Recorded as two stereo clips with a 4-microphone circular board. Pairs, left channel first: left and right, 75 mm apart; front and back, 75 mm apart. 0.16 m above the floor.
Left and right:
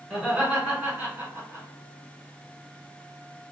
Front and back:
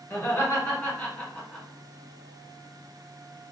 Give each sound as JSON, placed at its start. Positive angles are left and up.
{"t": 0.1, "sound": "laughter", "azimuth_deg": -15, "distance_m": 1.6}